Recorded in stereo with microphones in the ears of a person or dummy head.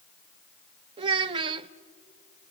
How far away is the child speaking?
About 0.5 m.